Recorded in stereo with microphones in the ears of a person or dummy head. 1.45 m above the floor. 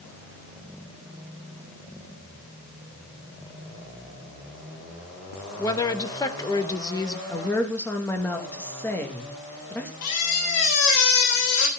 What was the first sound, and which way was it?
A woman speaking, 15° left (ahead or behind).